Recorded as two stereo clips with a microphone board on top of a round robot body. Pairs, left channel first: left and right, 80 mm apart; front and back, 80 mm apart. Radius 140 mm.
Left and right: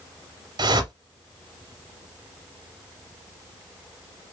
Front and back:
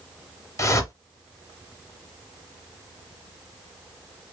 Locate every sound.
0.6 s a whoosh: 55° right, 0.8 m